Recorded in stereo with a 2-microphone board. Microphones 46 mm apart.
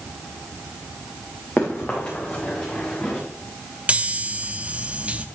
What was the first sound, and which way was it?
Running footsteps, 30° left (ahead or behind).